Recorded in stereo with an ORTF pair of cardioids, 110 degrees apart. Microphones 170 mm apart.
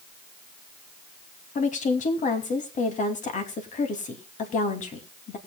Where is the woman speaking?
50° left, 2.5 m.